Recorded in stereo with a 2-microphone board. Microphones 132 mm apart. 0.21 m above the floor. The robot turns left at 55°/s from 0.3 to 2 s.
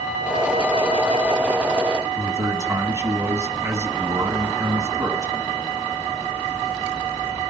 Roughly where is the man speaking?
Right.